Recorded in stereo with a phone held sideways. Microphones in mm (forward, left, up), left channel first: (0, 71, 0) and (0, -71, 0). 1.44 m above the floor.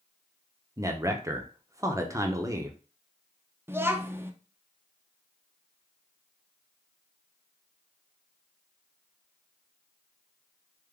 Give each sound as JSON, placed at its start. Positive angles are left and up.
{"t": 0.8, "sound": "a man speaking", "side_deg": -20, "distance_m": 0.6}
{"t": 3.7, "sound": "a child speaking", "side_deg": -15, "distance_m": 0.5}